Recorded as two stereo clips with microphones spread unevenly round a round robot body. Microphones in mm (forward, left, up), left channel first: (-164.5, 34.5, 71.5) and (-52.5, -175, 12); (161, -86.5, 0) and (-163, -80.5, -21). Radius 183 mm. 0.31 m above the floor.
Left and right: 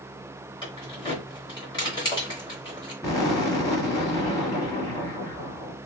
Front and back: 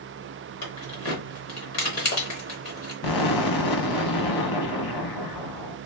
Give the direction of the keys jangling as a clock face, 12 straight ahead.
11 o'clock.